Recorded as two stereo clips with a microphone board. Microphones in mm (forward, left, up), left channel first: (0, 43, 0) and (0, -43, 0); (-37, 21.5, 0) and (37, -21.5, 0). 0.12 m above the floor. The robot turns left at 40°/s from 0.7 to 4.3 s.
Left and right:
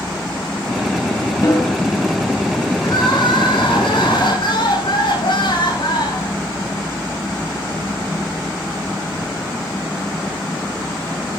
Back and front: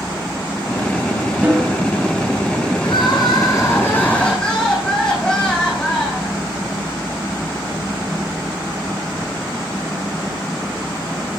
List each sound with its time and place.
1.4 s a snare drum: 40° left, 7 m; by 1.8 s 25° left, 7 m
2.8 s crying: 130° left, 6.5 m; by 6.3 s 70° left, 6.5 m